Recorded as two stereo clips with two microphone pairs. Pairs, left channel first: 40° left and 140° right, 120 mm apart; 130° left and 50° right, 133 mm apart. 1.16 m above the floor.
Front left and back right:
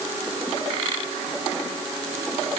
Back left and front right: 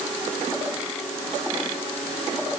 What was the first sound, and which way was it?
Only background noise.